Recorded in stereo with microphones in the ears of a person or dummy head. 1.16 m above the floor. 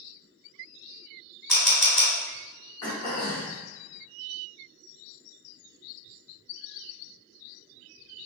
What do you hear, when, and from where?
1.5 s a camera shutter: 5° left (ahead or behind), 1.8 m
2.8 s throat clearing: 20° left (ahead or behind), 0.8 m